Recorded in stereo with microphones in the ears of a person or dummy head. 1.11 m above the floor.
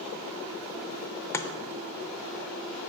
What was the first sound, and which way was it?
Chopping, 10° left (ahead or behind).